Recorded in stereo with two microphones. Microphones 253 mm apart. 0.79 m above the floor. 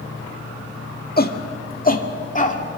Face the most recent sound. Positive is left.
turn(degrees=30)  # may be behind; listen again after turning